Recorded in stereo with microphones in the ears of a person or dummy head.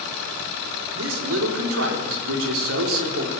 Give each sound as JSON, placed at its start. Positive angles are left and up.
{"t": 0.9, "sound": "a man speaking", "side_deg": -80, "distance_m": 4.5}